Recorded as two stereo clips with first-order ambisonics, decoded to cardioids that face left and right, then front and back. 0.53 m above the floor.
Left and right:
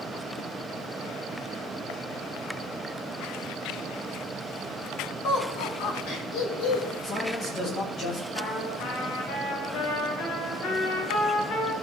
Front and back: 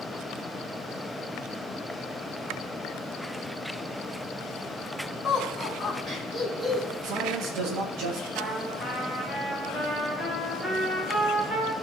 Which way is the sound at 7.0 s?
150° left.